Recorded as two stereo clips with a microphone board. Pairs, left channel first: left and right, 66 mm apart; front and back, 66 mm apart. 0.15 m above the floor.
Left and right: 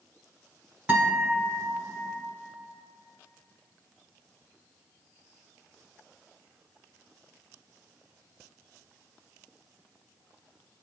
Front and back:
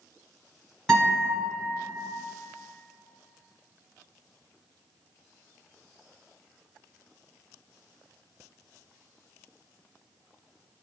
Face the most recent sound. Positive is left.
turn(degrees=-70)